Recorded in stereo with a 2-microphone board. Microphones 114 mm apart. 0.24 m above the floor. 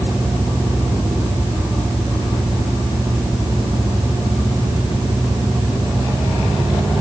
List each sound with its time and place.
Only background noise.